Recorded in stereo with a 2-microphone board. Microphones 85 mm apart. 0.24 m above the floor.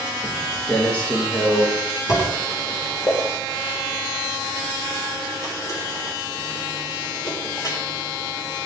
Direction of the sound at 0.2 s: 10° left (ahead or behind).